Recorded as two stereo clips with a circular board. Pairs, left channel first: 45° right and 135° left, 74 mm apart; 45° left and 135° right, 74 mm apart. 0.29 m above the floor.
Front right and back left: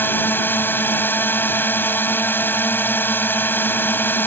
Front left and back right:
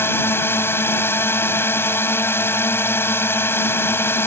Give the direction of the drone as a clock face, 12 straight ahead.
12 o'clock.